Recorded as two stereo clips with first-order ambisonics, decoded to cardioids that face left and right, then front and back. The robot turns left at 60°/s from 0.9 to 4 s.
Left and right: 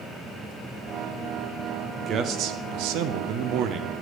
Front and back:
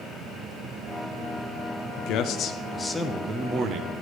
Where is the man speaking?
25° right, 0.6 m; by 3.9 s 145° right, 0.6 m.